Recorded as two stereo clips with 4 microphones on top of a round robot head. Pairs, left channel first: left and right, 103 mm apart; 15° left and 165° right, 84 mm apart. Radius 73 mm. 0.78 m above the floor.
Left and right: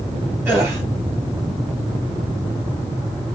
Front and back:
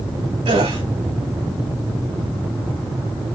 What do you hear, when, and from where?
0.5 s a gasp: 160° right, 2.5 m